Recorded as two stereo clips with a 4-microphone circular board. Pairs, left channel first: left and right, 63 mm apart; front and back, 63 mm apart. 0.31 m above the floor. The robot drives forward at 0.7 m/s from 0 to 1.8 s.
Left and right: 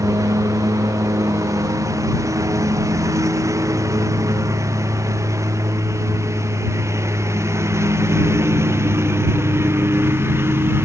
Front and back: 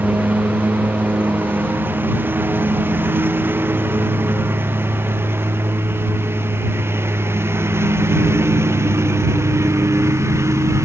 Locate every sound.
0.0 s a lawn mower: 115° right; by 10.8 s 140° right